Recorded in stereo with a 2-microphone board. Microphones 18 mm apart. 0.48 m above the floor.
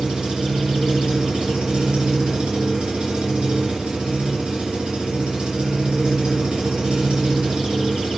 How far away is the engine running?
About 3.5 m.